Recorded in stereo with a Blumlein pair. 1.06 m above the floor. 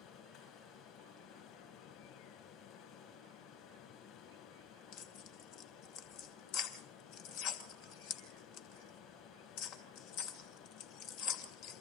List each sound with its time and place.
0.0 s running water: 40° left, 8 m
4.9 s tearing paper: 40° left, 2.5 m